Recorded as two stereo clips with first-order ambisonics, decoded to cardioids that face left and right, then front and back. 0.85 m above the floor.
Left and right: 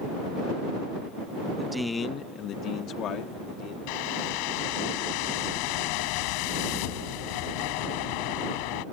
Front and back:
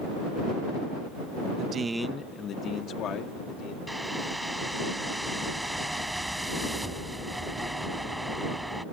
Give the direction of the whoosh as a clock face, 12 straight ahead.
9 o'clock.